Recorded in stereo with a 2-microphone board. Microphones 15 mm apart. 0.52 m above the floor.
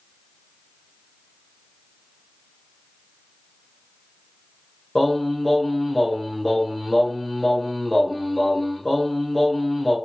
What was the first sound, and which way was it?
Singing, 5° left (ahead or behind).